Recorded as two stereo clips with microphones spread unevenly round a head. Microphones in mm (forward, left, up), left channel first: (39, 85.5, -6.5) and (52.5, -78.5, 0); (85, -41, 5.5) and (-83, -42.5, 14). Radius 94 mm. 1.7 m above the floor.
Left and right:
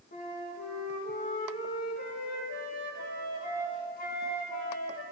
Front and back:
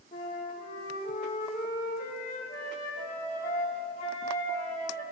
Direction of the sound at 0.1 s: 60° left.